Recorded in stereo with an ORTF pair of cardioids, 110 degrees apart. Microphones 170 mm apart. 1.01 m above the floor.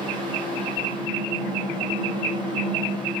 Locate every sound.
0.0 s a fan: 30° right, 0.7 m